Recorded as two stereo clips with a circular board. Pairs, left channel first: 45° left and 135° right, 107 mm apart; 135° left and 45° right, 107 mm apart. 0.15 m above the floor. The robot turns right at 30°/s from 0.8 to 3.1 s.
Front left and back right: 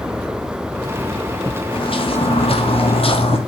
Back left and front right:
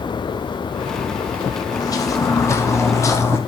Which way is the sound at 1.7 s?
80° left.